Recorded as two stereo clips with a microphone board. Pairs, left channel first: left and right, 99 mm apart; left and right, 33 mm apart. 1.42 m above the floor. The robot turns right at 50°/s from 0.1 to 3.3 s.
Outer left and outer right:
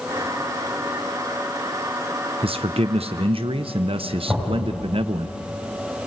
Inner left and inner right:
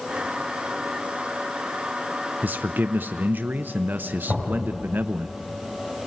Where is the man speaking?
110° right, 0.7 m; by 5.3 s 70° right, 0.7 m.